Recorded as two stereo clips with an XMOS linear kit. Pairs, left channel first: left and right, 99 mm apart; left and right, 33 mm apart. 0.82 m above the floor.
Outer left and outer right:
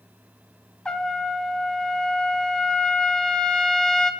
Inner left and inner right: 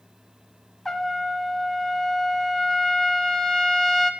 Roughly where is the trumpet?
Centre.